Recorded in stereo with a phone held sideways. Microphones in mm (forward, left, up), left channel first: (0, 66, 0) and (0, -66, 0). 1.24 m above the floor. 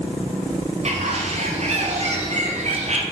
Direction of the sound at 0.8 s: 50° right (ahead or behind).